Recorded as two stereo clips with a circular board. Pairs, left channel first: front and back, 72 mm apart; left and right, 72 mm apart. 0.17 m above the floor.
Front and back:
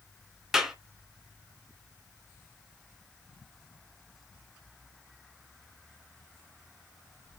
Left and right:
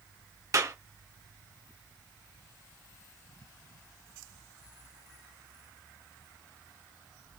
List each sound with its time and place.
0.5 s a clap: 100° right, 1.7 m